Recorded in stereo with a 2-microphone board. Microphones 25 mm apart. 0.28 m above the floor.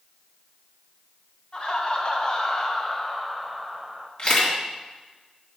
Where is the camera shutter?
45° left (ahead or behind), 3 m.